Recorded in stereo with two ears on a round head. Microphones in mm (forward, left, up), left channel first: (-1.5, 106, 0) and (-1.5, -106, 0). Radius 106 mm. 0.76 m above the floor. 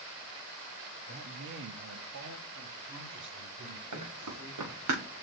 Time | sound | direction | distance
1.1 | a man speaking | 40° right (ahead or behind) | 1.0 m
3.9 | running footsteps | 75° right (ahead or behind) | 4.5 m